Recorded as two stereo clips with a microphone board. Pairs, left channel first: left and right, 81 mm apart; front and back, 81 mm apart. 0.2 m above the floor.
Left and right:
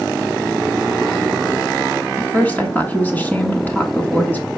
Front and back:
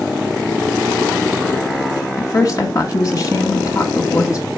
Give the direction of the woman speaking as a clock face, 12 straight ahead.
11 o'clock.